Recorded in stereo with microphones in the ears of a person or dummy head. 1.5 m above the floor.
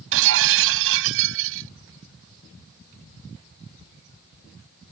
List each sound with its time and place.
0.1 s breaking glass: 75° right (ahead or behind)